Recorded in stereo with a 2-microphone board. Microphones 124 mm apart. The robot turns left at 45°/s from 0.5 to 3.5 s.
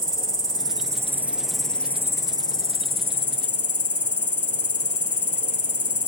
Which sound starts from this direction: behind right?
An insect, at 0.0 s.